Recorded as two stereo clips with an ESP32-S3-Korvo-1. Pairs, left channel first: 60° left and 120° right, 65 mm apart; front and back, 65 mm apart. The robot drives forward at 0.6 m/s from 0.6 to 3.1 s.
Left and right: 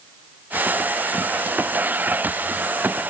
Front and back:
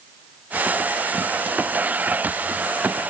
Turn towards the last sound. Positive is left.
No sound to turn to.